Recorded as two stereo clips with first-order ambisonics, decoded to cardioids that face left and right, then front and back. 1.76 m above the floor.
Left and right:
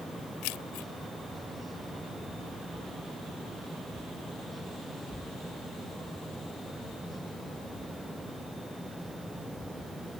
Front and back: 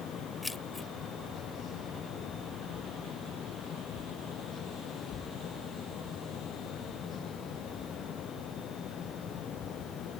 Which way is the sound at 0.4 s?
85° left.